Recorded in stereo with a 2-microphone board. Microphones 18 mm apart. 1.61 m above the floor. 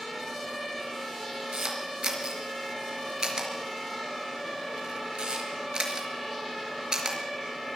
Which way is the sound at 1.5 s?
50° right (ahead or behind).